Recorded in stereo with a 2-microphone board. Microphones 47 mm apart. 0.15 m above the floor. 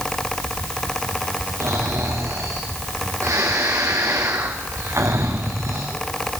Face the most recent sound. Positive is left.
turn(degrees=-80)